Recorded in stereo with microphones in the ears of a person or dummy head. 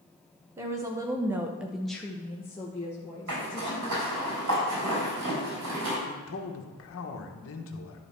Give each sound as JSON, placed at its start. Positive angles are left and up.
{"t": 0.6, "sound": "a woman speaking", "side_deg": -15, "distance_m": 1.3}
{"t": 3.3, "sound": "a zipper", "side_deg": -70, "distance_m": 4.0}
{"t": 6.1, "sound": "a man speaking", "side_deg": 55, "distance_m": 1.3}